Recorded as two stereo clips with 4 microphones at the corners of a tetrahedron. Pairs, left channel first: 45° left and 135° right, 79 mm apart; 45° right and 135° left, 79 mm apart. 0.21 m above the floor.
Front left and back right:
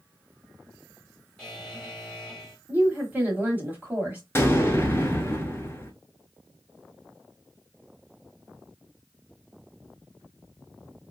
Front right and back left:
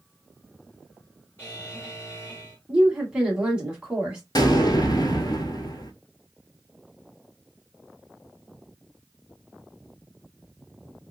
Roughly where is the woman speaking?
Behind.